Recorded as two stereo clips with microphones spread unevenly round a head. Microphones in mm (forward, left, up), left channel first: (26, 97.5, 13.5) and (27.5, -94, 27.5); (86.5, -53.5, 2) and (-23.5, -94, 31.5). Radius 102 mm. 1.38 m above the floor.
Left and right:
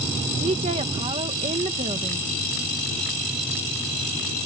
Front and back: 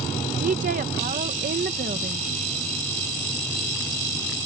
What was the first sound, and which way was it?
A woman speaking, 155° right.